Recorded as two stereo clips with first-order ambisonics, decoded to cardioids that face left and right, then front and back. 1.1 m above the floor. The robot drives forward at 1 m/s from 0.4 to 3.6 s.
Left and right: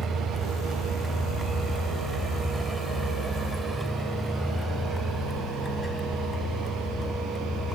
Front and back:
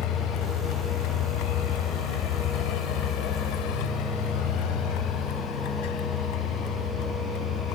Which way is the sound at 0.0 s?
20° right.